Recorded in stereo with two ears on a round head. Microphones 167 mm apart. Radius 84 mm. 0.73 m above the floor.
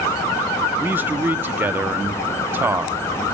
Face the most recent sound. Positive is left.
turn(degrees=-10)  # may be behind; listen again after turning